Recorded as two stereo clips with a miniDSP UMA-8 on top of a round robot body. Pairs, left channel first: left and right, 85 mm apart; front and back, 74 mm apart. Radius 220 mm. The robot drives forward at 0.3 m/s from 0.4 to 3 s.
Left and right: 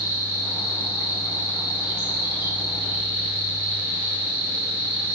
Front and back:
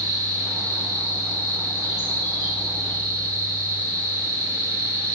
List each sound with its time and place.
0.0 s an insect: 150° right, 4 m; by 5.1 s 155° right, 4.5 m